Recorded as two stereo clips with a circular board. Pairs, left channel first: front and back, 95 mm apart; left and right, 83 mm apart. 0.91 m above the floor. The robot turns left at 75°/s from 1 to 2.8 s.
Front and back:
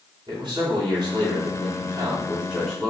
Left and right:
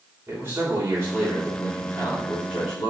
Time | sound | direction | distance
0.3 | a man speaking | 150° right | 3 m